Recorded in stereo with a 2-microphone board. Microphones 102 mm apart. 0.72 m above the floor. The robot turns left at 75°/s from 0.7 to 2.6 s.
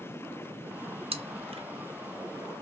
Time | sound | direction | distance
1.1 | chewing | 70° right (ahead or behind) | 0.6 m